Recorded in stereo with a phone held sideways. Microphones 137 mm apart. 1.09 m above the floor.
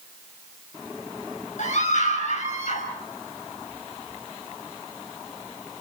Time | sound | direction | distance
1.6 | a scream | 65° left (ahead or behind) | 5 m